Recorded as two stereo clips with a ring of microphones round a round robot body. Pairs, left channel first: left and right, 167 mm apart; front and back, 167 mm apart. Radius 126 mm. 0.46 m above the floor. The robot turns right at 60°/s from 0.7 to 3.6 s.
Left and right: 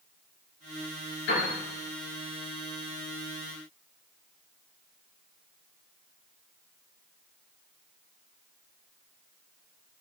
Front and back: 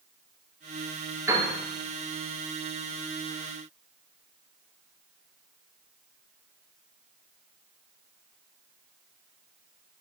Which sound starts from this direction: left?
A piano, at 1.3 s.